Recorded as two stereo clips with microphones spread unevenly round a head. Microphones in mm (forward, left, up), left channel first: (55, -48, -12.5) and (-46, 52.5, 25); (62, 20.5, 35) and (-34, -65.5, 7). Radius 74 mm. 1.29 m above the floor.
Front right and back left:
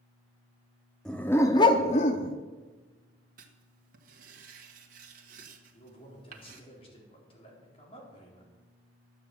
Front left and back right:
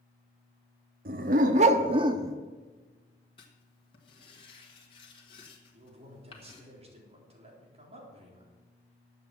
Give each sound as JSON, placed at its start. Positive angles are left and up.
{"t": 1.1, "sound": "a dog barking", "azimuth_deg": -145, "distance_m": 1.0}
{"t": 3.4, "sound": "writing", "azimuth_deg": 100, "distance_m": 1.5}
{"t": 5.7, "sound": "a man speaking", "azimuth_deg": -100, "distance_m": 4.0}